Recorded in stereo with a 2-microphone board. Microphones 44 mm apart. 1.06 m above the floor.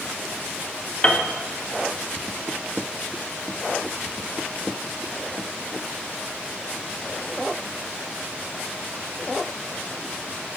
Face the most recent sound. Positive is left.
turn(degrees=20)  # may be behind; listen again after turning